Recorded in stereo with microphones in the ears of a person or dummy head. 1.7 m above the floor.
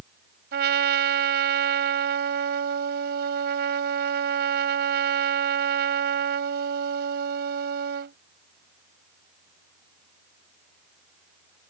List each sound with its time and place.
0.5 s a trumpet: 55° right (ahead or behind)